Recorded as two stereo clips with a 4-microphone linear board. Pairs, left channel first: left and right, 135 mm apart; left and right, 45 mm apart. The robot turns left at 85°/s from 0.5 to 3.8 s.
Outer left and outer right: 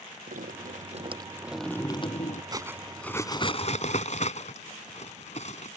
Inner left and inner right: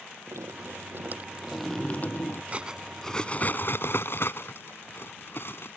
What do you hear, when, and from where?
0.3 s dripping: 90° right; by 2.4 s 110° left
2.5 s cutlery clinking: 30° right (ahead or behind); by 5.8 s 60° left (ahead or behind)